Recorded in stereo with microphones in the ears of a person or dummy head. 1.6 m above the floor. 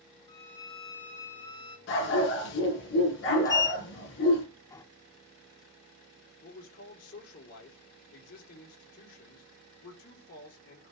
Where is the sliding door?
20° left (ahead or behind), 0.7 m.